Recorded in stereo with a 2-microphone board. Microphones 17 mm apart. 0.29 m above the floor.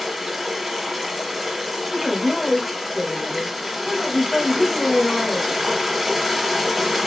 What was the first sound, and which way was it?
Running water, 5° right (ahead or behind).